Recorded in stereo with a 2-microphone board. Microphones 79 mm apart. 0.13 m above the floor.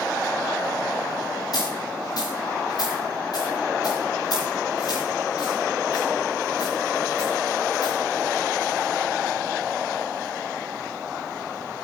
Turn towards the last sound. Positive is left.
turn(degrees=55)  # may be behind; listen again after turning